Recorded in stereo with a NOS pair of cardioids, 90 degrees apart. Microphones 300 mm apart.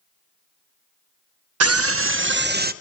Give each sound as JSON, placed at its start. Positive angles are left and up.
{"t": 1.6, "sound": "a scream", "azimuth_deg": -55, "distance_m": 1.2}